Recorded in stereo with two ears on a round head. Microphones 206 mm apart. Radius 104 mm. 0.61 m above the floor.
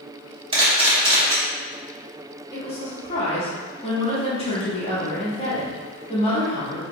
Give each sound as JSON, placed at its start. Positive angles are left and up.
{"t": 0.5, "sound": "a camera shutter", "side_deg": -25, "distance_m": 1.1}
{"t": 2.5, "sound": "a woman speaking", "side_deg": 25, "distance_m": 0.9}